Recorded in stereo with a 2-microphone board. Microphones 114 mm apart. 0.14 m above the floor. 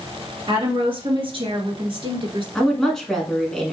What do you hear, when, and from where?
0.5 s a woman speaking: 55° right (ahead or behind), 2 m; by 2.5 s 50° right (ahead or behind), 1.8 m
2.5 s a woman speaking: 5° left (ahead or behind), 1.2 m